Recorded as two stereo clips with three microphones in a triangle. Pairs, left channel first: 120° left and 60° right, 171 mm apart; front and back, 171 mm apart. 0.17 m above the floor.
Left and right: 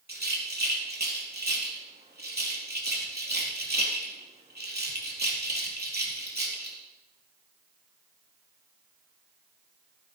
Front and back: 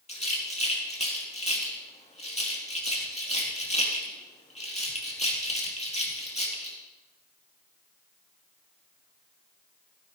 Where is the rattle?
50° right, 3.5 m.